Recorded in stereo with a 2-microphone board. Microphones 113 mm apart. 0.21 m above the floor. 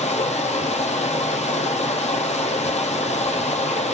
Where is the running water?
85° left, 0.8 m.